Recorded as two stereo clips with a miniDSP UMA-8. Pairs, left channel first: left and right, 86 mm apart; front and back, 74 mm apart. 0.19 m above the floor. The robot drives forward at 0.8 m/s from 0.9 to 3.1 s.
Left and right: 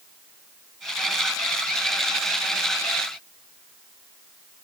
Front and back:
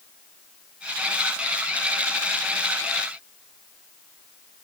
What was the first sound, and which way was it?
Only background noise.